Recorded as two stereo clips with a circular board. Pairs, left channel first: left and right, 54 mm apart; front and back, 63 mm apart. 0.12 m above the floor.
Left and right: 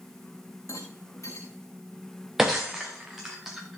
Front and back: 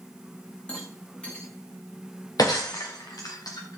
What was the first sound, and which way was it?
A rattle, 70° left.